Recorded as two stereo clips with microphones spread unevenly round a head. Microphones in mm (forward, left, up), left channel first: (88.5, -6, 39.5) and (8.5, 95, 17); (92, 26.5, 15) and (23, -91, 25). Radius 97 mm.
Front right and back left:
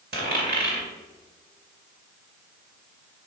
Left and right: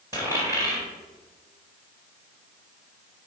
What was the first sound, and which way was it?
A dropped coin, 165° left.